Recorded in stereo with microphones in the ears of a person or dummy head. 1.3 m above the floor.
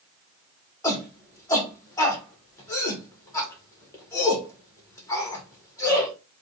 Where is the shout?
15° left (ahead or behind), 1.4 m.